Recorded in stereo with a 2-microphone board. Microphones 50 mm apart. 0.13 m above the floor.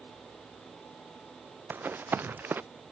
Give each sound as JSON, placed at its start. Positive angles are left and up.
{"t": 1.7, "sound": "running footsteps", "side_deg": -40}